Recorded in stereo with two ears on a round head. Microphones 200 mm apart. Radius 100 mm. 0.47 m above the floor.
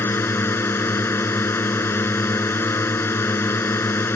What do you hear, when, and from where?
0.0 s a drone: 10° left (ahead or behind)